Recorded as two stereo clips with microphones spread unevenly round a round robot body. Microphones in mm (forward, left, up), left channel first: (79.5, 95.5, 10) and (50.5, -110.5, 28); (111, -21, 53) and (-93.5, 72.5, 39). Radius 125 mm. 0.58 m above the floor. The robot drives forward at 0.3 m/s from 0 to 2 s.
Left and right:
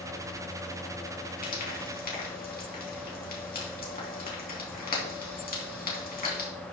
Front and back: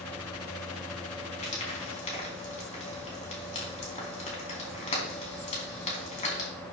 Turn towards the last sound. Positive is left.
turn(degrees=35)